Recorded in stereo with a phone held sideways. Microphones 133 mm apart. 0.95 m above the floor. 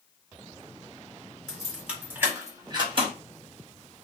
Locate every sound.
1.5 s keys jangling: 5° left (ahead or behind), 1.6 m; by 3.1 s 45° right (ahead or behind), 1.2 m